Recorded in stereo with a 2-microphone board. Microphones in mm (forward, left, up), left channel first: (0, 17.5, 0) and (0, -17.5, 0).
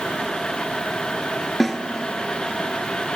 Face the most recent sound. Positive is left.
turn(degrees=10)  # may be behind; listen again after turning